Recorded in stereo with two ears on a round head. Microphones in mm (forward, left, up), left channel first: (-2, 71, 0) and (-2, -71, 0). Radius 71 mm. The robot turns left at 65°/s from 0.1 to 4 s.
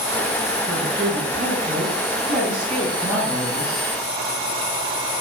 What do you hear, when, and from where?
0.7 s a woman speaking: 10° right, 9 m; by 3.8 s 145° left, 9 m